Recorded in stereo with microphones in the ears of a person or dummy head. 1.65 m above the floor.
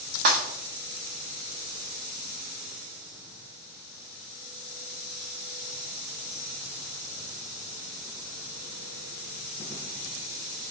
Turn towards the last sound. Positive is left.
turn(degrees=-35)  # may be behind; listen again after turning